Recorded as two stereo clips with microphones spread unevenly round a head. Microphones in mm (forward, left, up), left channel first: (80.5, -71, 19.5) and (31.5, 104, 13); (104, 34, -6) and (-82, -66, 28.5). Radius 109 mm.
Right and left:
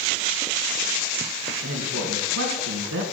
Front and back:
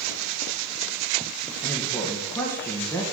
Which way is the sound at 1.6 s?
110° left.